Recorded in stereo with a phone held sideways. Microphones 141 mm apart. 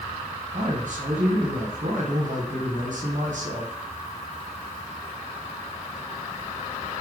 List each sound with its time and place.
0.5 s a man speaking: 65° right (ahead or behind), 1.1 m